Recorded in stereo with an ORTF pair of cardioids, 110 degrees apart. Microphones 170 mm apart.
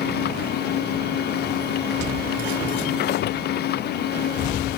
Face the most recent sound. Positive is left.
turn(degrees=70)